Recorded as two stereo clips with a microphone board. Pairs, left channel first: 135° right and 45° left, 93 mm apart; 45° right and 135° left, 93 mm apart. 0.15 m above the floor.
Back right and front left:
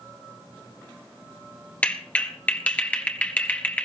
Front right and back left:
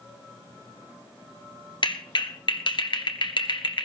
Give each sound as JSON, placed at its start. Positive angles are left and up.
{"t": 1.8, "sound": "a clap", "azimuth_deg": -65, "distance_m": 1.7}